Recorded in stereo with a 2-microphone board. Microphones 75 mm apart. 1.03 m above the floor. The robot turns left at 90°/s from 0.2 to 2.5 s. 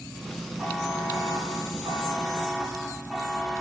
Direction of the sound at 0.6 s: 10° right.